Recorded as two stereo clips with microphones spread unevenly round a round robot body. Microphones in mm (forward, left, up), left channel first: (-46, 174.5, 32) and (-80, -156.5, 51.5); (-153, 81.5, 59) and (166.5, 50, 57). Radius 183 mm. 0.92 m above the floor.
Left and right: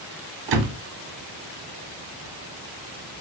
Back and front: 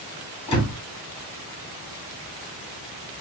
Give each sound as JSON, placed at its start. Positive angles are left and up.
{"t": 0.5, "sound": "a door slam", "azimuth_deg": -110, "distance_m": 1.1}